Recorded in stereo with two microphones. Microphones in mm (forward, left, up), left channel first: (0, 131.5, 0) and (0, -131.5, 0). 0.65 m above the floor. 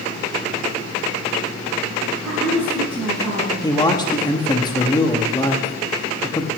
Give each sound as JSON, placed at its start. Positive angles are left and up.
{"t": 2.2, "sound": "a woman speaking", "side_deg": -20, "distance_m": 4.5}
{"t": 3.6, "sound": "a man speaking", "side_deg": 15, "distance_m": 1.0}